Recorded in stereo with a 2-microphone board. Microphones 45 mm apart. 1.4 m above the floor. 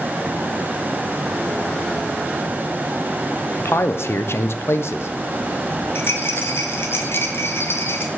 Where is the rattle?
65° left (ahead or behind), 0.9 m.